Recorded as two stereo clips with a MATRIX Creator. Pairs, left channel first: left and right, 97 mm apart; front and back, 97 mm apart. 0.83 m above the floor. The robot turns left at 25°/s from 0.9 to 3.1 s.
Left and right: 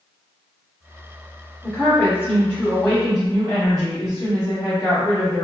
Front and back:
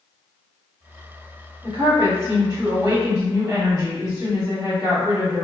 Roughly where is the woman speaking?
Behind.